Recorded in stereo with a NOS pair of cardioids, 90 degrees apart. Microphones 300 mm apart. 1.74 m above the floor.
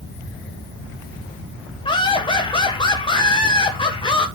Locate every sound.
1.9 s laughter: 15° left, 1.6 m